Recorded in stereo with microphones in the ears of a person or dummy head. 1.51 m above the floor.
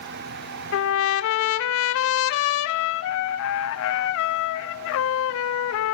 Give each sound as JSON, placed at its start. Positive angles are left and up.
{"t": 0.7, "sound": "a trumpet", "side_deg": 65, "distance_m": 0.6}